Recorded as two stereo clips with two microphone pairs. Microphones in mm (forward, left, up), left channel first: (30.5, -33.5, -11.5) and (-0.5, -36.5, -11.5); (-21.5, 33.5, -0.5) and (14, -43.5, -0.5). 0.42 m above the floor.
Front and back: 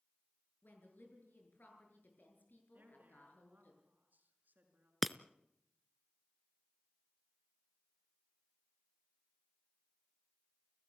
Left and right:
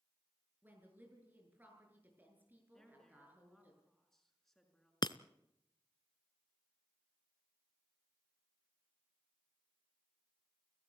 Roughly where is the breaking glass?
Left.